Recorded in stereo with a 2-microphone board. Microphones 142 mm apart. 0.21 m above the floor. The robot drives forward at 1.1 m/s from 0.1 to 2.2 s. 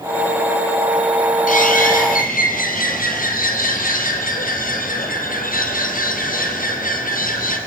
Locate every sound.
1.5 s a bird: 70° left (ahead or behind), 3 m; by 7.6 s 80° left, 3 m